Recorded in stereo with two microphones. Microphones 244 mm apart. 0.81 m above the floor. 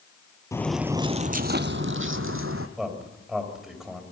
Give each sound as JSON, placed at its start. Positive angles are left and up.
{"t": 0.5, "sound": "footsteps", "side_deg": 15, "distance_m": 0.8}
{"t": 2.8, "sound": "a man speaking", "side_deg": 0, "distance_m": 4.5}